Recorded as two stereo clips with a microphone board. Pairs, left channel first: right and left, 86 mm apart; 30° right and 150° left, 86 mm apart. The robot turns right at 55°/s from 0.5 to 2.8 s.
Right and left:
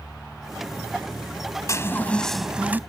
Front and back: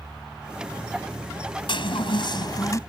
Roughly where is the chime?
Ahead right.